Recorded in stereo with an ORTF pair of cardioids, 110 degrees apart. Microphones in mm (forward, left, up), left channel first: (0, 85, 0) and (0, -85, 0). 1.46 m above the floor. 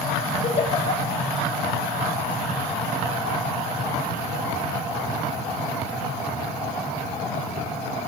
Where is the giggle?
35° left, 7 m.